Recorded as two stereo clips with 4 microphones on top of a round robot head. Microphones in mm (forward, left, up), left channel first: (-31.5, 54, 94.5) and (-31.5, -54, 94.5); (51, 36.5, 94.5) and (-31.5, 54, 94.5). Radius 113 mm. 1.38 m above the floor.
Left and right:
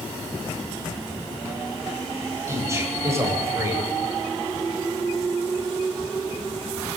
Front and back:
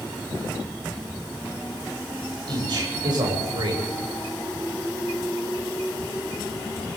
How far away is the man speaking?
About 9 m.